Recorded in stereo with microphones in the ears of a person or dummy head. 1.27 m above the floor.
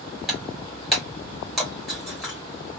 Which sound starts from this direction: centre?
Breaking glass, at 0.3 s.